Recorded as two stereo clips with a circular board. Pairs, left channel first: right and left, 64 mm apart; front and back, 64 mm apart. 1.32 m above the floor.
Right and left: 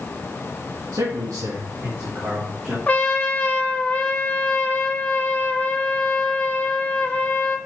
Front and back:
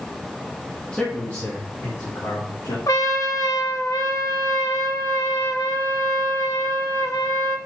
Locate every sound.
0.9 s a man speaking: 80° left, 1.8 m; by 2.8 s 15° left, 3 m
2.9 s a trumpet: 25° right, 0.9 m